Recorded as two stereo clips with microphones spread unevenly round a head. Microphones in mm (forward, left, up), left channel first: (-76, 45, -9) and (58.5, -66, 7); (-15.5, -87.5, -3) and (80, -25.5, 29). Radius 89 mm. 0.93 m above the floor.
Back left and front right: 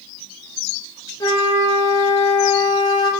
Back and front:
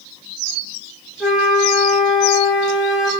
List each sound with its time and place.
1.2 s a flute: 80° left, 0.8 m